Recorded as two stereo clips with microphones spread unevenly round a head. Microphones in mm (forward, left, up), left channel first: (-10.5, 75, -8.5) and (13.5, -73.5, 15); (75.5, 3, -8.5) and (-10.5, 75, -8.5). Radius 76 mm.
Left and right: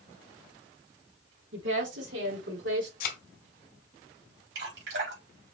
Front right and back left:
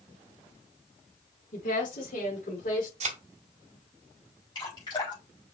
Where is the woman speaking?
75° right, 3 m; by 2.9 s 70° right, 4 m.